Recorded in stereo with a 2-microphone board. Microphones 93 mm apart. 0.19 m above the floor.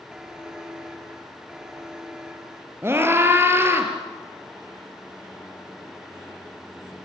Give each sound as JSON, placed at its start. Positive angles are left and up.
{"t": 0.1, "sound": "a buzzer", "side_deg": -5, "distance_m": 2.0}
{"t": 2.8, "sound": "a scream", "side_deg": -25, "distance_m": 4.0}